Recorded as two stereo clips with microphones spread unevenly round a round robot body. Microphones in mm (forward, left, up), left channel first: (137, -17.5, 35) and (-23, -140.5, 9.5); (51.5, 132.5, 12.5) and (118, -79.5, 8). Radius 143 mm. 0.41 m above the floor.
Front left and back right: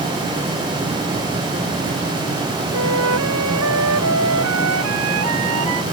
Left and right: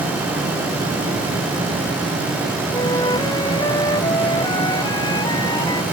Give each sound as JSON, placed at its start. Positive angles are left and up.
{"t": 2.7, "sound": "a flute", "azimuth_deg": -175}